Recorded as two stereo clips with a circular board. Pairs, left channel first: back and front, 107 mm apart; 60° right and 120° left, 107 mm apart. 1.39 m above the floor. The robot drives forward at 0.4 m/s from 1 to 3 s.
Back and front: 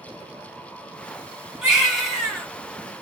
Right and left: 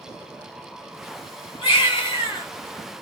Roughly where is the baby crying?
Right.